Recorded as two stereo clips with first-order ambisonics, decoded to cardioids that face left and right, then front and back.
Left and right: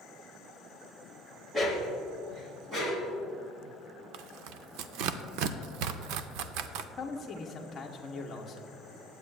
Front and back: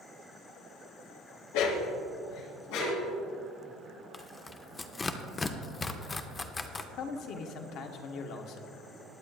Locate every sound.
1.5 s a dog barking: 10° right, 1.5 m; by 3.1 s 20° right, 3.5 m
4.1 s tearing paper: 75° right, 0.5 m
7.0 s a man speaking: 20° left, 1.0 m